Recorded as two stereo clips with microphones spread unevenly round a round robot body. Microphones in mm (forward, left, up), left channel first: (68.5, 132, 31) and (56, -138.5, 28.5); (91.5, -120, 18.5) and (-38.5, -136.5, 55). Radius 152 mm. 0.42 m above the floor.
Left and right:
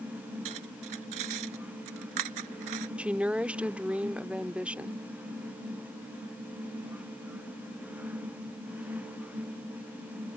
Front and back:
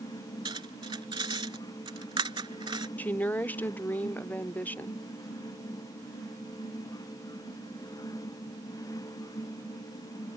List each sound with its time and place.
0.5 s cutlery clinking: 120° right
3.0 s a woman speaking: 10° right